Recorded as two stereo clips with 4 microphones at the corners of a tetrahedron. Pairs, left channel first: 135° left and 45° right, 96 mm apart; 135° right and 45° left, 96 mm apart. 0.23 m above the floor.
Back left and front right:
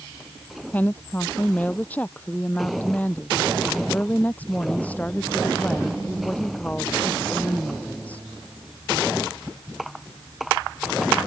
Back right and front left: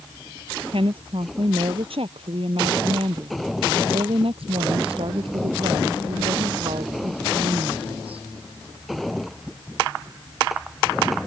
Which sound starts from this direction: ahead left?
A woman speaking, at 0.7 s.